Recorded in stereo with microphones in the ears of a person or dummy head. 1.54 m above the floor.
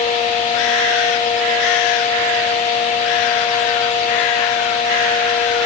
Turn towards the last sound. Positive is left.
No sound to turn to.